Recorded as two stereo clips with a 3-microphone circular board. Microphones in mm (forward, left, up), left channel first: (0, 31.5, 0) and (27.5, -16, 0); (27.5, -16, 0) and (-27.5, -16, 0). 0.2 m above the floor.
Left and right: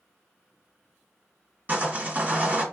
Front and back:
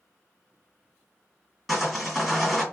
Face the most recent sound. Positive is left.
turn(degrees=-90)